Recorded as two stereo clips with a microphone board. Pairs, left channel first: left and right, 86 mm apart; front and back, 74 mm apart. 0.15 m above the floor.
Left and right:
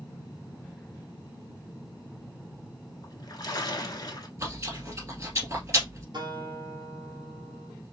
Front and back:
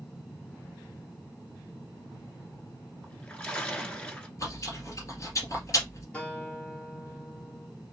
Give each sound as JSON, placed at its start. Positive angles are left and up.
{"t": 3.0, "sound": "a splash", "azimuth_deg": 70, "distance_m": 1.2}
{"t": 4.4, "sound": "chewing", "azimuth_deg": -35, "distance_m": 2.0}
{"t": 6.1, "sound": "a guitar", "azimuth_deg": -70, "distance_m": 1.9}